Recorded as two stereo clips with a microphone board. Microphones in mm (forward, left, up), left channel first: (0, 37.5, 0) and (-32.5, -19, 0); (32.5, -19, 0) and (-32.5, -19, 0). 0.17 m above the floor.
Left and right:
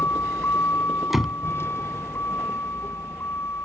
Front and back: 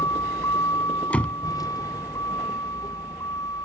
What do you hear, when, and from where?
0.0 s a vehicle: 10° left
1.1 s a door slam: 40° right